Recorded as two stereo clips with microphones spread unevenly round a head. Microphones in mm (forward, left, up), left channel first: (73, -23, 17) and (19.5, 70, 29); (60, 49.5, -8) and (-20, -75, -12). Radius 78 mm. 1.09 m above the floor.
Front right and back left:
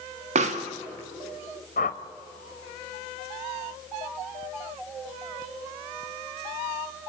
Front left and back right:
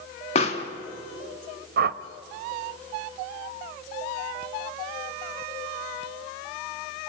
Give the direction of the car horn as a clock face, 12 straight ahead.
I don't hear a car horn.